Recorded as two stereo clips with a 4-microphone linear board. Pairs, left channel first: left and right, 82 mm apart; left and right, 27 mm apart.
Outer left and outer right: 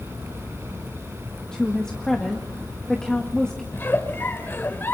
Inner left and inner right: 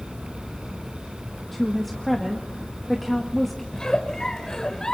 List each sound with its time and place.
1.5 s a woman speaking: 10° left (ahead or behind), 1.7 m
3.7 s a giggle: 30° left (ahead or behind), 1.4 m